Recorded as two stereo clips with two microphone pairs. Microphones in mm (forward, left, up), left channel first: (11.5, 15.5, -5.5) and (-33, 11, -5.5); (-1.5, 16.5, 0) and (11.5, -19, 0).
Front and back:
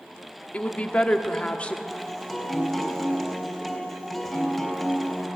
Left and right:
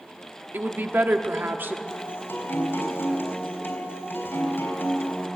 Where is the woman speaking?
55° right, 1.2 m.